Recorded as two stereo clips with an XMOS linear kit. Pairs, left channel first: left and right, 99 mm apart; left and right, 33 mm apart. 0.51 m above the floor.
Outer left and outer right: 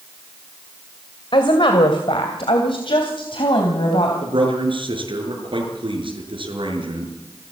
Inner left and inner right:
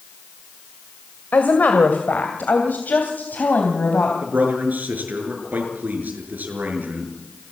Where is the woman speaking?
65° left (ahead or behind), 2 m; by 4.1 s 70° left (ahead or behind), 3.5 m.